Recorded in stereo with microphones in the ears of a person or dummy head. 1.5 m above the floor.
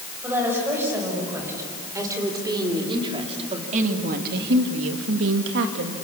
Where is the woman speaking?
10° right (ahead or behind), 7 m; by 6.0 s 50° right (ahead or behind), 2 m.